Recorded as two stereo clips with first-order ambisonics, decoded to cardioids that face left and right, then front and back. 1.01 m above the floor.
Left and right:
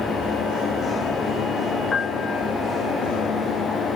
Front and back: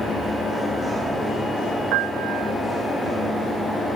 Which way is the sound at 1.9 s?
160° left.